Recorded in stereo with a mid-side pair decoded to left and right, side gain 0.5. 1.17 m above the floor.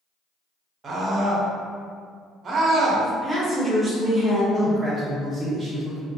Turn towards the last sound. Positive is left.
turn(degrees=-15)